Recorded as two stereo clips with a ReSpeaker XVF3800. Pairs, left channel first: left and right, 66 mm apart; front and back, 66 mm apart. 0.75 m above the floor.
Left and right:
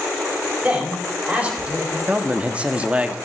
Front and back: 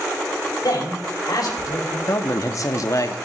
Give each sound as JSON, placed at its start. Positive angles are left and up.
{"t": 0.6, "sound": "a man speaking", "azimuth_deg": -20, "distance_m": 3.5}
{"t": 2.1, "sound": "a man speaking", "azimuth_deg": -20, "distance_m": 1.2}